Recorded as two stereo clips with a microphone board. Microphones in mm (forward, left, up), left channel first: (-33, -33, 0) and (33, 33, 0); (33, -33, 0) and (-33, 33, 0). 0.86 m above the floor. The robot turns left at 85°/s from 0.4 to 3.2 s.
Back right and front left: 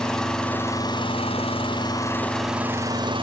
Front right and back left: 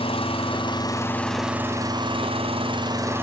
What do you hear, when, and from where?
0.0 s an engine running: 50° right, 5 m; by 3.2 s 70° left, 5 m